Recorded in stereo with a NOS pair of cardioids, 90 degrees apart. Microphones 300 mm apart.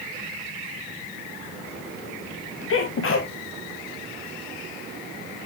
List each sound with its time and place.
2.7 s a sneeze: 45° left, 1.5 m